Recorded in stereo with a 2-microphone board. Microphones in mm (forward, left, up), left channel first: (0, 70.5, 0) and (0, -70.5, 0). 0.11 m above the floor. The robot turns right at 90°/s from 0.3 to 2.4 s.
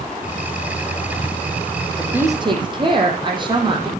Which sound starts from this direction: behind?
A woman speaking, at 2.0 s.